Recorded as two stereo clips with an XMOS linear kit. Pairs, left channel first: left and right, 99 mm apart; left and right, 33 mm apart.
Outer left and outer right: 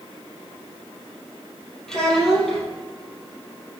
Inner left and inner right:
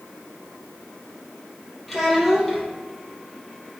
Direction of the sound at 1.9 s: 5° left (ahead or behind).